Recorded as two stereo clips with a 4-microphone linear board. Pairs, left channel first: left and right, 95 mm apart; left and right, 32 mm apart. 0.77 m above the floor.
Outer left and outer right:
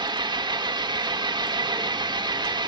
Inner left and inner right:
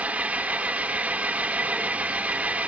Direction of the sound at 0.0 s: 55° right (ahead or behind).